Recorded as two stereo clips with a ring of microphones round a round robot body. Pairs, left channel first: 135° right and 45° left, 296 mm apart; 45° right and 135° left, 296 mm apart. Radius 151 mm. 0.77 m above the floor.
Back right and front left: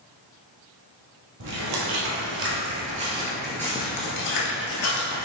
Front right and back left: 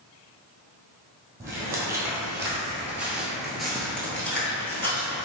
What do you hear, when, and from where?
1.4 s footsteps: 55° left, 1.4 m; by 5.2 s 125° right, 1.2 m